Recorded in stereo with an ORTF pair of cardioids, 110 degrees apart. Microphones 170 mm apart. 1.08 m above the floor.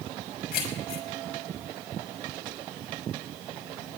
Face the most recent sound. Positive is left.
turn(degrees=55)